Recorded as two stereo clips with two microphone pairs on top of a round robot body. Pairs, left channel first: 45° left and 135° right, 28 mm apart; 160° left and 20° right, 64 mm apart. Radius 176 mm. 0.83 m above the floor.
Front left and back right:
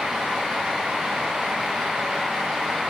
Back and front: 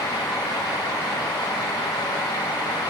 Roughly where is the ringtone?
I don't hear a ringtone.